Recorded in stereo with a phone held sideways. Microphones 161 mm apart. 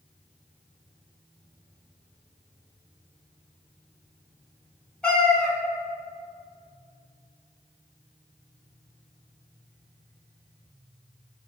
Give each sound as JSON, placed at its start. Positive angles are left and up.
{"t": 5.0, "sound": "a cat meowing", "side_deg": 5, "distance_m": 1.2}